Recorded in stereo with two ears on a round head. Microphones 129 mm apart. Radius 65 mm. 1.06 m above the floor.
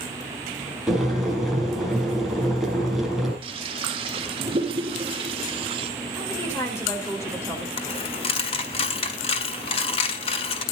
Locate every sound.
0.9 s boiling: centre (ahead or behind), 5.5 m
3.4 s a toilet flushing: 40° right (ahead or behind), 1.2 m
6.1 s a woman speaking: 20° left (ahead or behind), 4.5 m
7.8 s a dropped coin: 40° left (ahead or behind), 1.5 m